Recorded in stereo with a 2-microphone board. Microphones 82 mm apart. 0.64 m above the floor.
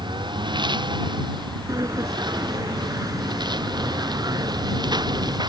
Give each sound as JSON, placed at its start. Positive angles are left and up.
{"t": 0.0, "sound": "a lawn mower", "side_deg": -65}
{"t": 1.7, "sound": "a sliding door", "side_deg": -45}